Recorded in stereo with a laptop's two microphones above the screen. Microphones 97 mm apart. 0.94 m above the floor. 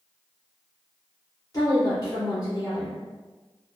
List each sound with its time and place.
1.5 s a woman speaking: 40° left (ahead or behind), 1.6 m